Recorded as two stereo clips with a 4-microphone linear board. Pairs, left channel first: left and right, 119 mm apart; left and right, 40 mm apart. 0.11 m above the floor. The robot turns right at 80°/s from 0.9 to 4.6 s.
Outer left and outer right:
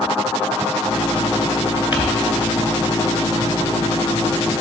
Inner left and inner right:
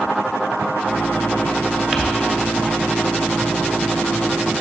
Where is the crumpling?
15° right (ahead or behind), 1.3 m; by 2.0 s 10° right (ahead or behind), 1.3 m.